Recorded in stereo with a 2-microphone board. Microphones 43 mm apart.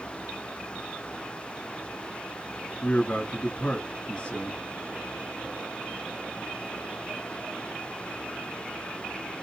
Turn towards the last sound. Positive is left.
turn(degrees=35)  # may be behind; listen again after turning